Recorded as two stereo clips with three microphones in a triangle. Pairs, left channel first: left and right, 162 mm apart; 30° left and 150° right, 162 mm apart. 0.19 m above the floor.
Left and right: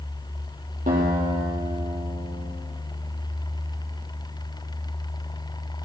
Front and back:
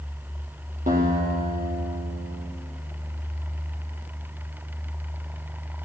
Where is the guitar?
125° right, 3.5 m.